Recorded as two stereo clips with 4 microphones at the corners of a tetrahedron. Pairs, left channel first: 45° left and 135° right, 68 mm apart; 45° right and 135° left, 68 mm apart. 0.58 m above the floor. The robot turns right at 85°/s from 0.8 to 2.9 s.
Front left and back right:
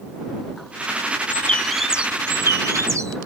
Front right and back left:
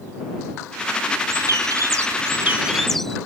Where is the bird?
95° left; by 3.2 s 130° right.